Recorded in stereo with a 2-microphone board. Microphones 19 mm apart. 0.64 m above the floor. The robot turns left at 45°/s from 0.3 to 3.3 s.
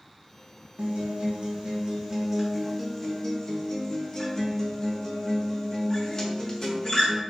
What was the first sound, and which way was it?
A guitar, 100° right.